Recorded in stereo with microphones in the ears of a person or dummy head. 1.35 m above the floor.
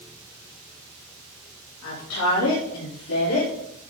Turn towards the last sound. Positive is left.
turn(degrees=90)